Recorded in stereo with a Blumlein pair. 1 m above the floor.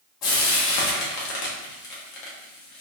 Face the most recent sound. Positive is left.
turn(degrees=35)